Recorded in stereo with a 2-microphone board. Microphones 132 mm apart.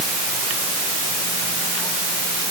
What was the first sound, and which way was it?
Only background noise.